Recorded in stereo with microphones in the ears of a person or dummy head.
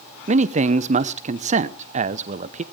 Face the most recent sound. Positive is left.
turn(degrees=-40)  # may be behind; listen again after turning